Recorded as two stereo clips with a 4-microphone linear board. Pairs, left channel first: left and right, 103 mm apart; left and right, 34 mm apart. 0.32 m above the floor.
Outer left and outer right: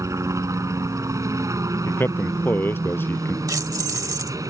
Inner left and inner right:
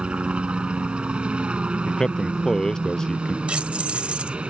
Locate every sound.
0.0 s a helicopter: 30° right (ahead or behind); by 4.5 s 35° right (ahead or behind)
1.9 s a man speaking: 20° left (ahead or behind)
3.5 s keys jangling: 35° right (ahead or behind)